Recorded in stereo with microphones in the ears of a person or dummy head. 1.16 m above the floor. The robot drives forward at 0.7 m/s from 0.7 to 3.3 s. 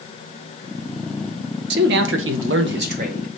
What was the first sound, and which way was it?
A man speaking, 65° right (ahead or behind).